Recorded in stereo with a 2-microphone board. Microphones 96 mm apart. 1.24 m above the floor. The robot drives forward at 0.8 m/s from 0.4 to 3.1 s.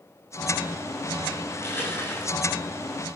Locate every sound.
1.5 s crushing: 25° left (ahead or behind), 8.5 m